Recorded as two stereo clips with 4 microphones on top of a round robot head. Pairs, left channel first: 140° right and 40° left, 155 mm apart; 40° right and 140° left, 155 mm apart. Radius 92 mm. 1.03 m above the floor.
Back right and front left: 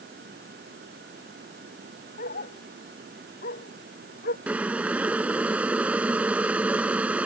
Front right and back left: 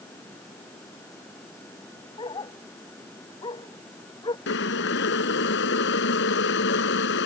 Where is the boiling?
45° right.